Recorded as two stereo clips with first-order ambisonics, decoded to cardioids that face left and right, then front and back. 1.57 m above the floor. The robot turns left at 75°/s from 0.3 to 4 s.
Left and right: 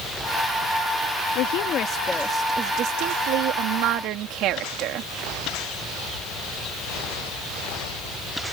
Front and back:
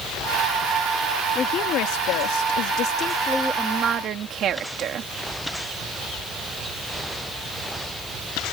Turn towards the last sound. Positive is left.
turn(degrees=-130)